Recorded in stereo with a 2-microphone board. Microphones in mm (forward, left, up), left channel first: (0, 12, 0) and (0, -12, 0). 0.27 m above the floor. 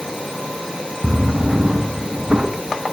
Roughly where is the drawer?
Right.